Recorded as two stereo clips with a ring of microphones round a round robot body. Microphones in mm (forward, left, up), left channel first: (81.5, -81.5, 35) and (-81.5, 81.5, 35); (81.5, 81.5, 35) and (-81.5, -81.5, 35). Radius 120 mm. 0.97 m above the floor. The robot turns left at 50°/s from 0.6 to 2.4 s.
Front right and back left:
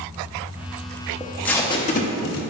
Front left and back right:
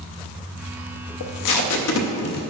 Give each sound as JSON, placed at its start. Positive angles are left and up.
{"t": 1.2, "sound": "tape being pulled", "azimuth_deg": 50, "distance_m": 0.6}